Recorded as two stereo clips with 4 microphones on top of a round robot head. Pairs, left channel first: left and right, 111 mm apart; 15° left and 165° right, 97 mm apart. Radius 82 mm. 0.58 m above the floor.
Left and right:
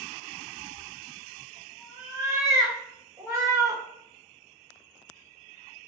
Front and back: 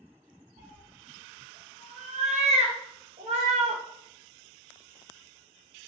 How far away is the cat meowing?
About 3.5 m.